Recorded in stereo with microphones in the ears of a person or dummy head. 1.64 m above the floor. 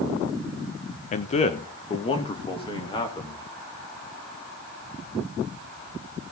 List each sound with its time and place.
1.1 s a man speaking: 40° left (ahead or behind), 1.1 m; by 3.5 s 20° left (ahead or behind), 3.5 m